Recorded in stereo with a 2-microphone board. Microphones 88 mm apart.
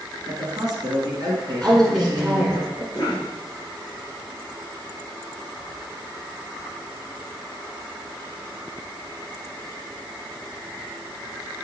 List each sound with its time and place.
0.3 s a man speaking: 50° right (ahead or behind), 2.5 m
1.6 s a woman speaking: 15° right (ahead or behind), 1.7 m
2.9 s a cough: 45° left (ahead or behind), 2.5 m